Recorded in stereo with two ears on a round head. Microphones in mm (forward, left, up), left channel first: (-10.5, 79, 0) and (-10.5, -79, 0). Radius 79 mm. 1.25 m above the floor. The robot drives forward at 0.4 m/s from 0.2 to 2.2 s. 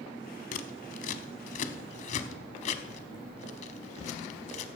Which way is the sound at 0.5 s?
45° left (ahead or behind).